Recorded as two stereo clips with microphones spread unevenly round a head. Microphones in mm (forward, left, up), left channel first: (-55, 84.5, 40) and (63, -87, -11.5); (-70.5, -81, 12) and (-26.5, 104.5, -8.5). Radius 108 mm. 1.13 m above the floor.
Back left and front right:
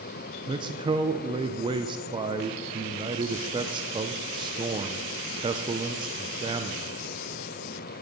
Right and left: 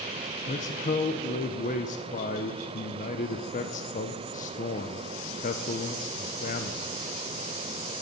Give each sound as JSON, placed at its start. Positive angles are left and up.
{"t": 0.5, "sound": "a man speaking", "azimuth_deg": -70, "distance_m": 0.5}